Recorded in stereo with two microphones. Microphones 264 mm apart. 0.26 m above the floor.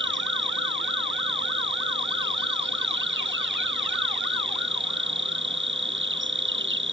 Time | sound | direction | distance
0.0 | an insect | 45° right (ahead or behind) | ?